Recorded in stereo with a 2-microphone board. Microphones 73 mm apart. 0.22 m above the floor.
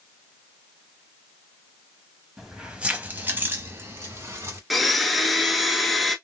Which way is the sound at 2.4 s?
5° right (ahead or behind).